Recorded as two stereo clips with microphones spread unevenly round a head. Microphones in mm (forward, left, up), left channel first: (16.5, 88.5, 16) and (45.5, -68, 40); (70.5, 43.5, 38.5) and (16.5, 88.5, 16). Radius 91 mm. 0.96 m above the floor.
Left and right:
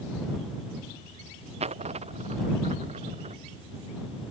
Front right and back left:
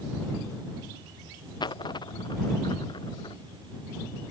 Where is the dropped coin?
30° right.